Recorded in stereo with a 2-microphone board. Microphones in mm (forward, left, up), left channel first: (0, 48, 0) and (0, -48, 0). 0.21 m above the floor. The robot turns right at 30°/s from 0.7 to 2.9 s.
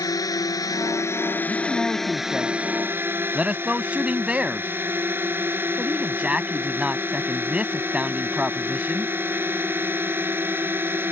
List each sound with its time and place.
0.0 s a drone: 135° left; by 11.1 s 155° right
1.5 s a man speaking: 15° left (ahead or behind); by 9.1 s 10° right (ahead or behind)